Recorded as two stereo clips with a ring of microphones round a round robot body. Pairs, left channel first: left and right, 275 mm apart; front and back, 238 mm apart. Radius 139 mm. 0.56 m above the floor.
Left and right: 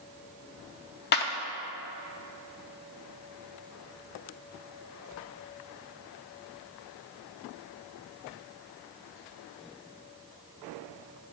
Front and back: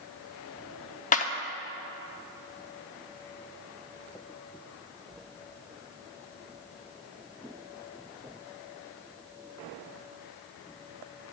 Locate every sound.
1.1 s a clap: 50° left, 0.7 m